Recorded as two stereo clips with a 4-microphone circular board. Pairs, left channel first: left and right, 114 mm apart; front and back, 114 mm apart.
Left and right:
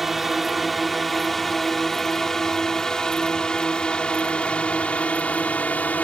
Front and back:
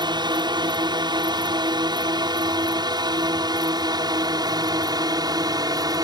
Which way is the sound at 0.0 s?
Straight behind.